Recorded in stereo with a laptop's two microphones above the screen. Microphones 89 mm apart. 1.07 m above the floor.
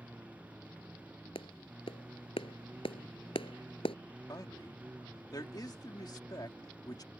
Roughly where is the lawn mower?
Centre.